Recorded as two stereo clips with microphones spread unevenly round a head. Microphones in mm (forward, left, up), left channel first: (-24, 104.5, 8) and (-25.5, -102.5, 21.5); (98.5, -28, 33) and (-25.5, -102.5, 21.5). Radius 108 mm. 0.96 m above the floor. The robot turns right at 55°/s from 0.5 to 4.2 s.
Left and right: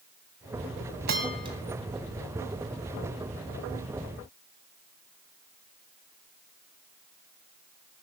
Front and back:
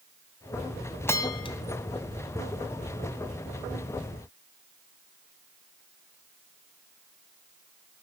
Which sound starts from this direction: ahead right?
A bell, at 1.1 s.